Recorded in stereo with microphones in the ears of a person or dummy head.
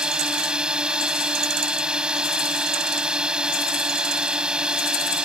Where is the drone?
Centre (ahead or behind).